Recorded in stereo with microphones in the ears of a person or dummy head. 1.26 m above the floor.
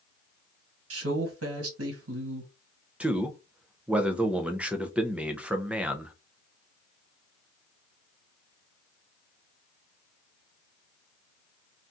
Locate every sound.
0.9 s a man speaking: 75° right (ahead or behind), 1.5 m
3.0 s a man speaking: 10° right (ahead or behind), 0.5 m